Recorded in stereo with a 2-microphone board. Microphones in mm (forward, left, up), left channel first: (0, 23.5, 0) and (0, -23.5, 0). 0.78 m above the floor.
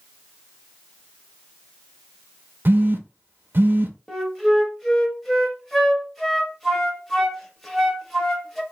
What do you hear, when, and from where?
2.6 s a phone buzzing: 50° right (ahead or behind), 0.5 m
4.1 s a flute: 5° left (ahead or behind), 0.8 m